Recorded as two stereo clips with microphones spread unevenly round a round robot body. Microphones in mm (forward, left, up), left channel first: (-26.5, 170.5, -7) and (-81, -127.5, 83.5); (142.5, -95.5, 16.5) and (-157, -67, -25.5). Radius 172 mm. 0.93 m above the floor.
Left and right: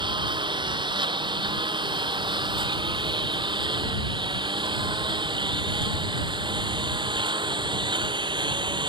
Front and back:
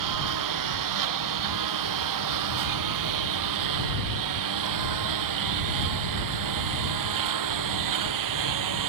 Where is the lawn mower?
175° right.